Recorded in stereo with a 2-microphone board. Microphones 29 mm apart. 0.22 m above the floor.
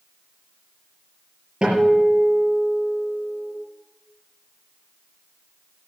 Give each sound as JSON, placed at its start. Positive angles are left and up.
{"t": 1.6, "sound": "a guitar", "side_deg": -30, "distance_m": 5.5}